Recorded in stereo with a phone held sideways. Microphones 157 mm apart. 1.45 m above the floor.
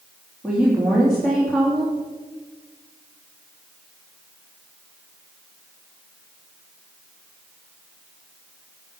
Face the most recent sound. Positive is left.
turn(degrees=-5)  # may be behind; listen again after turning